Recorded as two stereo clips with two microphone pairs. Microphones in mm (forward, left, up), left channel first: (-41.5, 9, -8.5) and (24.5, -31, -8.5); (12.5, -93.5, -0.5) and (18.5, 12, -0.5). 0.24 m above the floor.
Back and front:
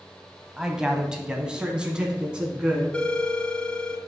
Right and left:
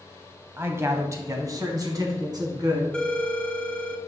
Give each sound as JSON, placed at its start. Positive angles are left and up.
{"t": 0.6, "sound": "a man speaking", "azimuth_deg": 45, "distance_m": 1.0}
{"t": 2.9, "sound": "a phone ringing", "azimuth_deg": -155, "distance_m": 0.8}